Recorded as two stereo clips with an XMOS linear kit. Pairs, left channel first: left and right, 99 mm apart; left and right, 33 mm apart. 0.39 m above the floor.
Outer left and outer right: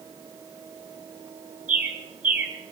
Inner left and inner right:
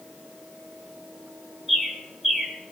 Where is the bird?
15° right (ahead or behind), 1.8 m.